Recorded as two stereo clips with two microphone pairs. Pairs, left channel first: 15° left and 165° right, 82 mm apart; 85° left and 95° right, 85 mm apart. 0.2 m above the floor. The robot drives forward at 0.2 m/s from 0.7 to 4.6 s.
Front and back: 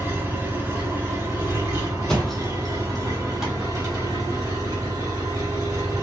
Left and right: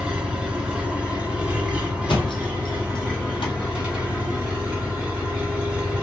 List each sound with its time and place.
0.0 s an engine running: 155° right, 1.3 m; by 6.0 s 170° right, 1.8 m
2.1 s a thud: 95° left, 1.2 m; by 3.5 s 110° left, 1.3 m